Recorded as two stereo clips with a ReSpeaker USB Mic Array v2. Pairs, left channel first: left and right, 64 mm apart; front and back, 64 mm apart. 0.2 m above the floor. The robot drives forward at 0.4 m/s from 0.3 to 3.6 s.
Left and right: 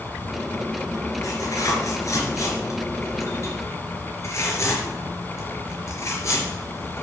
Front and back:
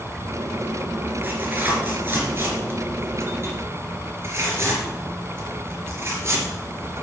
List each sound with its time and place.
1.2 s tearing paper: 115° left, 3.5 m; by 7.0 s 130° left, 4 m